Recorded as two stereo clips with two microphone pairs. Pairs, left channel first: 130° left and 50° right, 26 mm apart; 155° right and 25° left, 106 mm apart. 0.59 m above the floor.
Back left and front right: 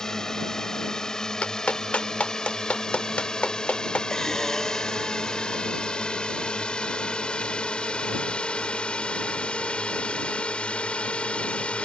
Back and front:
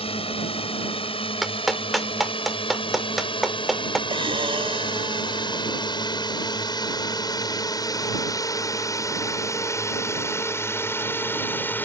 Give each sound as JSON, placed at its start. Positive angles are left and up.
{"t": 0.0, "sound": "a drone", "azimuth_deg": -165}
{"t": 1.4, "sound": "a clap", "azimuth_deg": 115}
{"t": 4.1, "sound": "breathing", "azimuth_deg": 55}